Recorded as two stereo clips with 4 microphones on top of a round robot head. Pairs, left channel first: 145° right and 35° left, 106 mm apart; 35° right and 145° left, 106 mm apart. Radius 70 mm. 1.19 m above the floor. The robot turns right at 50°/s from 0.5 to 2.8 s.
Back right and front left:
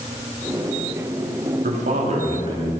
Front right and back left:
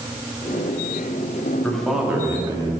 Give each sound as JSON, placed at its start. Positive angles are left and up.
{"t": 1.6, "sound": "a man speaking", "azimuth_deg": 40, "distance_m": 2.0}